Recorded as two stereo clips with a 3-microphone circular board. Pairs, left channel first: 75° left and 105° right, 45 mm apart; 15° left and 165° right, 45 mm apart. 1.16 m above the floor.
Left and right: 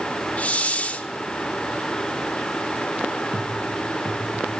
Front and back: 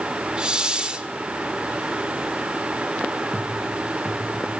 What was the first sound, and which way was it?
A hiss, 130° left.